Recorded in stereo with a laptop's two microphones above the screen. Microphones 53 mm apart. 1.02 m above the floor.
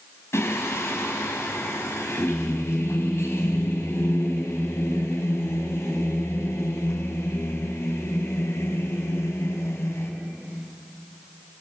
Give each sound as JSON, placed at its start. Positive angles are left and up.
{"t": 0.3, "sound": "singing", "side_deg": 60, "distance_m": 5.0}